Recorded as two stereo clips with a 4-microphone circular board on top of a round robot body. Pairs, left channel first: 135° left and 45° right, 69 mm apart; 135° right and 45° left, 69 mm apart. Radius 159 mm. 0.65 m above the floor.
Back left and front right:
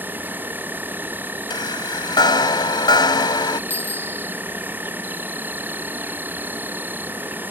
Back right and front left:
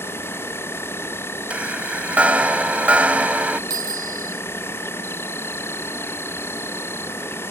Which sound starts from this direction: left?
A bicycle bell, at 3.7 s.